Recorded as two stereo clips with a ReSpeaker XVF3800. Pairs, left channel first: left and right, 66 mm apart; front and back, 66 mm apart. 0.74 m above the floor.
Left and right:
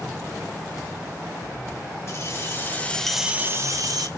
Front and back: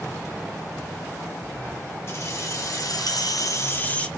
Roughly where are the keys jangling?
Ahead left.